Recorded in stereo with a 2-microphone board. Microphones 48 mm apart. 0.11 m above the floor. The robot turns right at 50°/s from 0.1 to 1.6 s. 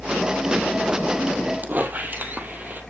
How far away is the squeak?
About 1.9 m.